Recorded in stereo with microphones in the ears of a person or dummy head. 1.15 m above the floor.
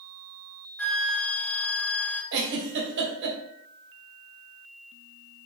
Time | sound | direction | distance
0.8 | a flute | 5° left (ahead or behind) | 1.4 m
2.3 | a giggle | 65° right (ahead or behind) | 2 m